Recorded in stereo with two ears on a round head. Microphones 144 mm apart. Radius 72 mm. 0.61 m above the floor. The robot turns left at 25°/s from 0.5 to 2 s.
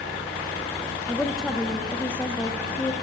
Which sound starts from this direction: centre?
A woman speaking, at 1.1 s.